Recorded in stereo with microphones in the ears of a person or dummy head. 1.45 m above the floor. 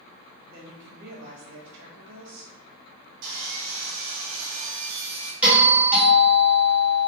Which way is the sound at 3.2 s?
65° right (ahead or behind).